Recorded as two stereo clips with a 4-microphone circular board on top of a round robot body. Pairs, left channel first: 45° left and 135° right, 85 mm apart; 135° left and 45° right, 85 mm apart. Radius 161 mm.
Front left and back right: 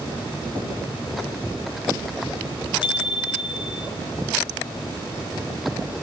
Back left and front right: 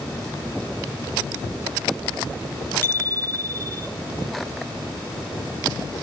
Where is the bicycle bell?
70° left, 4.5 m.